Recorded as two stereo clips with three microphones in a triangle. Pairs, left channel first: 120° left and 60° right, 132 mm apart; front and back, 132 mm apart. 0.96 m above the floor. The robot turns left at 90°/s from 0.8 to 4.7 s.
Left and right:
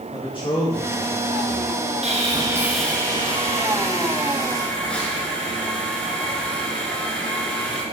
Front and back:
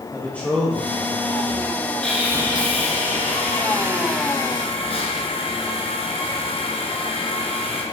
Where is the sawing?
80° right, 2 m; by 7.8 s 40° left, 2 m.